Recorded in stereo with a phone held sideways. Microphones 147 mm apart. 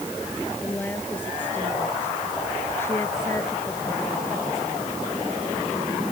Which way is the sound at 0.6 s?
10° left (ahead or behind).